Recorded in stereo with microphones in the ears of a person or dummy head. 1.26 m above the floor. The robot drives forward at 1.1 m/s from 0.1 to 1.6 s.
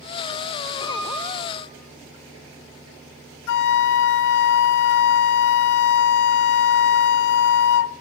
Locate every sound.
0.8 s a piano: 30° left (ahead or behind), 8 m; by 1.6 s 25° left (ahead or behind), 9 m
3.5 s a flute: 65° left (ahead or behind), 0.6 m